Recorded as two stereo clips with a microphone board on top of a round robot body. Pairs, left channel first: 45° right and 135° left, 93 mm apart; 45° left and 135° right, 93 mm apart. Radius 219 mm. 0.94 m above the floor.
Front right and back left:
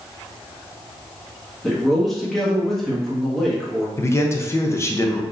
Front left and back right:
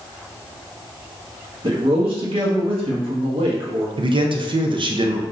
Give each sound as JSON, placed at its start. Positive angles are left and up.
{"t": 1.6, "sound": "a man speaking", "azimuth_deg": -135, "distance_m": 1.5}
{"t": 4.0, "sound": "a man speaking", "azimuth_deg": -105, "distance_m": 0.6}